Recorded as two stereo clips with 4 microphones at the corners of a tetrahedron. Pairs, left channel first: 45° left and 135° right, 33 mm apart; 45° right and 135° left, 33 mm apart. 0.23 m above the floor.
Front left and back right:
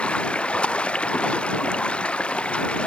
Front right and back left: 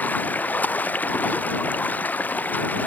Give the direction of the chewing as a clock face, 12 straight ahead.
No chewing in this recording.